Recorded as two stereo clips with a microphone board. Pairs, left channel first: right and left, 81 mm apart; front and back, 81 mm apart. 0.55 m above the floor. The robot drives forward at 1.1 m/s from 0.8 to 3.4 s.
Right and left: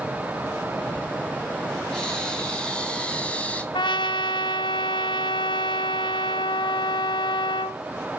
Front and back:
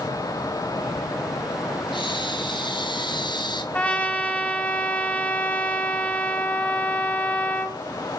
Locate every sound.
1.9 s breathing: 10° right, 4 m; by 3.6 s 15° right, 2.5 m
3.7 s a trumpet: 75° right, 1.8 m